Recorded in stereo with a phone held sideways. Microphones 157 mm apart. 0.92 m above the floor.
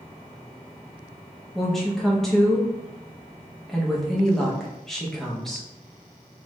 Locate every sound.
1.6 s a woman speaking: centre (ahead or behind), 0.9 m